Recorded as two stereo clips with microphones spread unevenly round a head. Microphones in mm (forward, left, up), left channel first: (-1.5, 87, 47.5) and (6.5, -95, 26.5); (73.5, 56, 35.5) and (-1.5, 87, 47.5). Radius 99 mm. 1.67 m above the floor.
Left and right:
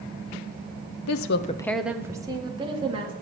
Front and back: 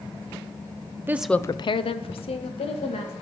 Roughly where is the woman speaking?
Left.